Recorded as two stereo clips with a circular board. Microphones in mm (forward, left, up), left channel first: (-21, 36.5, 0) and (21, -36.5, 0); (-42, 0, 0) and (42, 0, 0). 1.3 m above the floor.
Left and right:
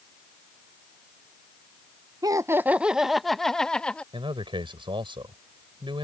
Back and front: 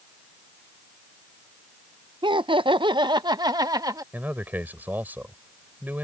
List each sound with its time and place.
2.2 s laughter: 20° right; by 4.0 s 40° left
4.1 s a man speaking: 70° right